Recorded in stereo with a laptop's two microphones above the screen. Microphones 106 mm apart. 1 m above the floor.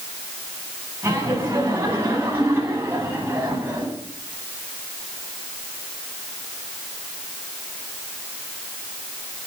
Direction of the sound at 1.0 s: 25° right (ahead or behind).